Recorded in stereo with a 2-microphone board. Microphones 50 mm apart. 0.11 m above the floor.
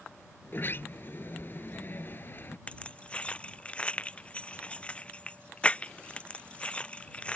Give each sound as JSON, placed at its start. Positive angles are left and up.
{"t": 0.4, "sound": "a sliding door", "side_deg": 40}
{"t": 2.7, "sound": "keys jangling", "side_deg": 20}